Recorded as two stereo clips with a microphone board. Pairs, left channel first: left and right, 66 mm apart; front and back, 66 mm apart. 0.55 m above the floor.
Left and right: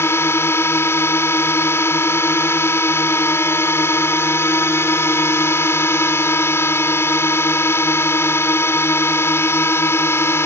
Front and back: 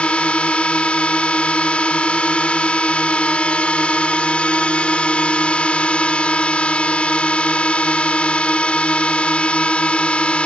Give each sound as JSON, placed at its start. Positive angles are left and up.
{"t": 0.0, "sound": "a drone", "azimuth_deg": 65}